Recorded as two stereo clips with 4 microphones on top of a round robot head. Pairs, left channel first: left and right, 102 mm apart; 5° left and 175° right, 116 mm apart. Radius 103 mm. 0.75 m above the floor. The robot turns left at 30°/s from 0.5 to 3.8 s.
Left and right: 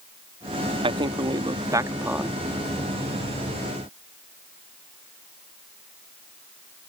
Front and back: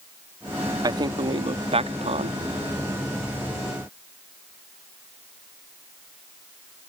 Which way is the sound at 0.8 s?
120° right.